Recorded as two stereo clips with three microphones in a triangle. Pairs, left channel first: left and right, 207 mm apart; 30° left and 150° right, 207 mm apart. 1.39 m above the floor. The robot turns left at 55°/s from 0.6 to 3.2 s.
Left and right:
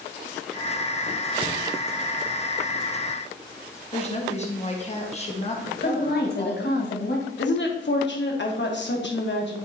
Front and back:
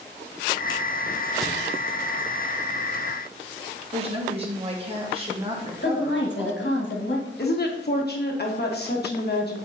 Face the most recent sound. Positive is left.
turn(degrees=65)